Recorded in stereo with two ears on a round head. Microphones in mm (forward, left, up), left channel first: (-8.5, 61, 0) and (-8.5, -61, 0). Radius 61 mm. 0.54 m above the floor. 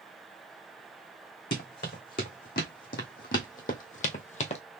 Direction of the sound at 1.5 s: 70° left (ahead or behind).